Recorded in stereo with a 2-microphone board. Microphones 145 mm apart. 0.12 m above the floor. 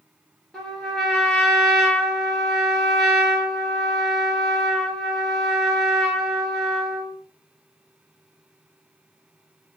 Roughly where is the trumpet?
Centre.